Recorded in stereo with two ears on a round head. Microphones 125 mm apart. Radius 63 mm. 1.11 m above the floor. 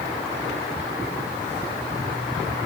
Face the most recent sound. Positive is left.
No sound to turn to.